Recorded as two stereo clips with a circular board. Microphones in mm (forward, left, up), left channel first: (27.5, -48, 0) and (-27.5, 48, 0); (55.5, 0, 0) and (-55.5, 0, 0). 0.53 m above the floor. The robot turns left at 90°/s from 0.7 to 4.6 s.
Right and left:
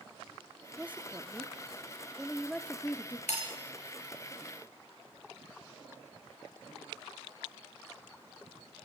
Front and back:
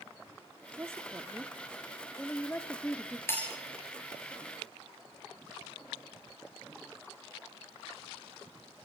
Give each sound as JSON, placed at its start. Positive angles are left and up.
{"t": 0.8, "sound": "a woman speaking", "azimuth_deg": 180, "distance_m": 1.2}
{"t": 3.3, "sound": "breaking glass", "azimuth_deg": -65, "distance_m": 7.0}